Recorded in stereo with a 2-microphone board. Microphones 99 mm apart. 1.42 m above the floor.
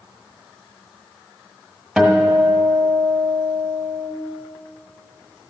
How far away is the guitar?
About 1.3 m.